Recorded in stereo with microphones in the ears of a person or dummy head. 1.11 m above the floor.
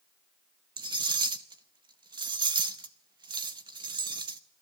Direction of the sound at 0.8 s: 20° right (ahead or behind).